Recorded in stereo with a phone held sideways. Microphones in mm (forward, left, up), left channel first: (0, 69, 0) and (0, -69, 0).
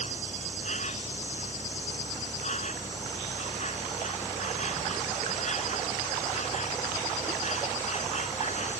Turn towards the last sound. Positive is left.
turn(degrees=55)  # may be behind; listen again after turning